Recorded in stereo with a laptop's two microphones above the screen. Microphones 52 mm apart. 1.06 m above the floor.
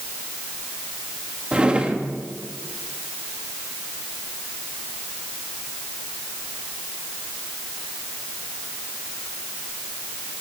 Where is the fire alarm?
I don't hear a fire alarm.